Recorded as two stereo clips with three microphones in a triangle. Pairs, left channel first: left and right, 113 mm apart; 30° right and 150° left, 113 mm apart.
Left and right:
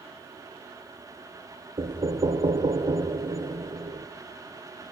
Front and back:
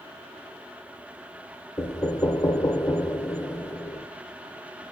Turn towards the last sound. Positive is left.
turn(degrees=-80)